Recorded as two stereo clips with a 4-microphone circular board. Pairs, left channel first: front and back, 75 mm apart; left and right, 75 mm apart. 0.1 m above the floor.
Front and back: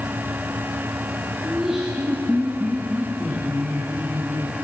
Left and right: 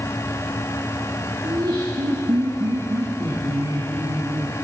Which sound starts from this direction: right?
Laughter, at 1.4 s.